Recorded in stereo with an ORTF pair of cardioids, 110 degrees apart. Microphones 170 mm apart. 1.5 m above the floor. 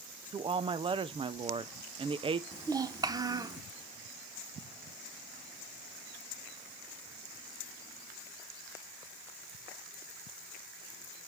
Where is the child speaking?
25° right, 0.9 m.